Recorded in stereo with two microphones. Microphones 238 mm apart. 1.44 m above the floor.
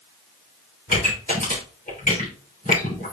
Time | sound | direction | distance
0.9 | a pop | 35° left (ahead or behind) | 3.5 m